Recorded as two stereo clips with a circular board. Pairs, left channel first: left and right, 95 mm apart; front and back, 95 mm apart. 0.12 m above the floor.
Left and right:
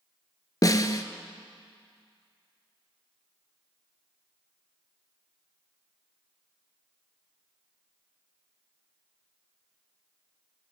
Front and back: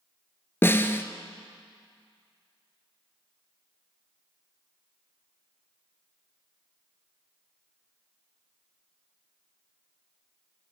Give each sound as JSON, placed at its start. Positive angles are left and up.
{"t": 0.6, "sound": "a snare drum", "azimuth_deg": 60, "distance_m": 0.8}